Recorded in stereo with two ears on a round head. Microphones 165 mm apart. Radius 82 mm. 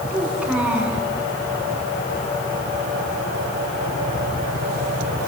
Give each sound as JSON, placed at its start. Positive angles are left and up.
{"t": 0.1, "sound": "a child speaking", "side_deg": -5, "distance_m": 7.5}